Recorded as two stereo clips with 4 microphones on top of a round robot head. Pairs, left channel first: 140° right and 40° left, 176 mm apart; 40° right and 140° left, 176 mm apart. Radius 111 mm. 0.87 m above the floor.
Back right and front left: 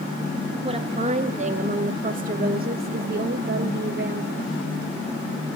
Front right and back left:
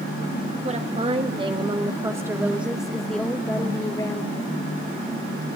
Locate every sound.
0.6 s a woman speaking: 95° left, 1.9 m; by 4.5 s 20° left, 1.7 m